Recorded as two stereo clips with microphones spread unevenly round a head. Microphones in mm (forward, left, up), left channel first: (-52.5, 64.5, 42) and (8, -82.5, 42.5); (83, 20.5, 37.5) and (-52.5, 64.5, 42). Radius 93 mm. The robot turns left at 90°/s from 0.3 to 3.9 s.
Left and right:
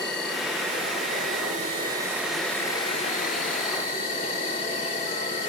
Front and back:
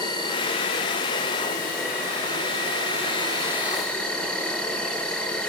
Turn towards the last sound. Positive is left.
turn(degrees=65)